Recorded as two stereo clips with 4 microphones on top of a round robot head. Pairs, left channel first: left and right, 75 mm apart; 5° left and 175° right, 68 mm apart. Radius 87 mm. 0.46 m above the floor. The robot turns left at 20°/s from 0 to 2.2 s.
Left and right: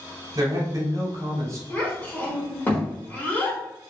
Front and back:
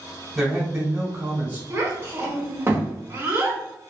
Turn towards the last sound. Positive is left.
turn(degrees=145)